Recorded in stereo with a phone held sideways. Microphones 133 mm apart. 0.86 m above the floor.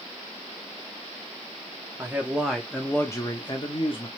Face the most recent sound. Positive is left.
turn(degrees=45)  # may be behind; listen again after turning